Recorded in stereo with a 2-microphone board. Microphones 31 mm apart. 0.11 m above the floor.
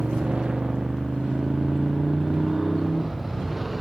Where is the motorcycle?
40° right (ahead or behind); by 3.8 s 5° right (ahead or behind).